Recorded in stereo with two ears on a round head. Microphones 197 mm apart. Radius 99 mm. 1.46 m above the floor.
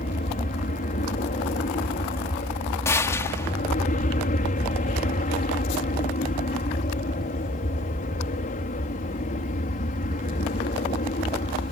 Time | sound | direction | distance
0.0 | an aircraft | 40° left (ahead or behind) | ?
2.9 | a gunshot | 15° left (ahead or behind) | ?